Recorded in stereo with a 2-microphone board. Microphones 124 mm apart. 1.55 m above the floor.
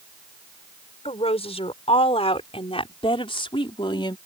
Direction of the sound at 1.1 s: 55° left (ahead or behind).